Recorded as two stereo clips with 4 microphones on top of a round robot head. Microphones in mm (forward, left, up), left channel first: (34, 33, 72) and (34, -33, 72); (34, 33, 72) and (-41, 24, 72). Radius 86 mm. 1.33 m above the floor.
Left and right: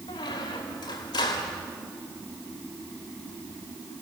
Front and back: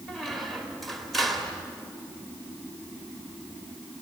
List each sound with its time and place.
0.1 s a squeak: 95° left, 1.6 m